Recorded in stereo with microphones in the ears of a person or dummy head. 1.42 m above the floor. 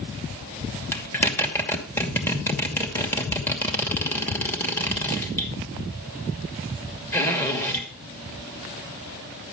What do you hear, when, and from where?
0.9 s a zipper: 15° left (ahead or behind), 2.5 m